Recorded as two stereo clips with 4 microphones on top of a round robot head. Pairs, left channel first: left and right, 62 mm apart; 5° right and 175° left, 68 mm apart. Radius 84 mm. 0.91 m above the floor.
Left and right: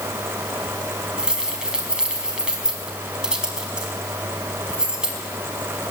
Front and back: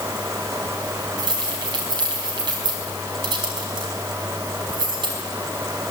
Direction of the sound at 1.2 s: 165° right.